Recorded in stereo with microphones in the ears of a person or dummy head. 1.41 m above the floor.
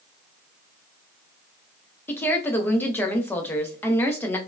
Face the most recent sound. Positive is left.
turn(degrees=10)  # may be behind; listen again after turning